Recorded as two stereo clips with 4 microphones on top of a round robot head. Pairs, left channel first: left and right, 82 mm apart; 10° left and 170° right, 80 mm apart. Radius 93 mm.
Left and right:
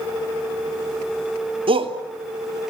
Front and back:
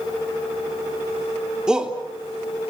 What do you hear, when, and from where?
1.7 s a shout: 90° right, 3 m